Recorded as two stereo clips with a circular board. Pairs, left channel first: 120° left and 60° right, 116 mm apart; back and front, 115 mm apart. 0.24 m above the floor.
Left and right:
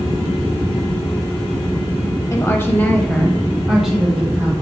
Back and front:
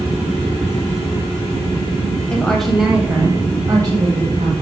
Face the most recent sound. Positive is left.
turn(degrees=15)